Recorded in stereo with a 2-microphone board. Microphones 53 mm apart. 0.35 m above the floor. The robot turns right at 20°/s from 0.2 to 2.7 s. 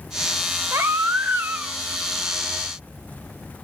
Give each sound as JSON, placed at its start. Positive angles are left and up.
{"t": 0.7, "sound": "a baby crying", "side_deg": -55, "distance_m": 0.6}